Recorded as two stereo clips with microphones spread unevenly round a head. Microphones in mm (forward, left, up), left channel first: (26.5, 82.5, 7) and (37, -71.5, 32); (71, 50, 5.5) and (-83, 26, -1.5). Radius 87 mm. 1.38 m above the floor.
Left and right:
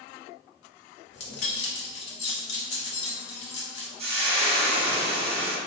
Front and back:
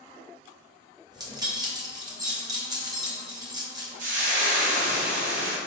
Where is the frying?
135° right, 0.8 m.